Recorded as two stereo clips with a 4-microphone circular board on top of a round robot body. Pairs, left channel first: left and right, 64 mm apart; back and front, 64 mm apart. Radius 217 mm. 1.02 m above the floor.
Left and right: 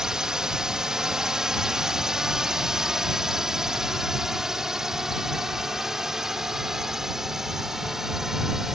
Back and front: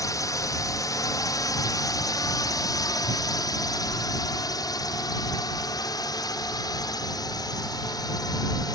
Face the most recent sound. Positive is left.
turn(degrees=-175)